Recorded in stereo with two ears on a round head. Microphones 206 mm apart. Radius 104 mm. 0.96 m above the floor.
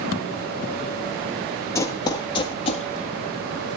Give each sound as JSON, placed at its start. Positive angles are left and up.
{"t": 1.8, "sound": "running footsteps", "side_deg": 15, "distance_m": 1.6}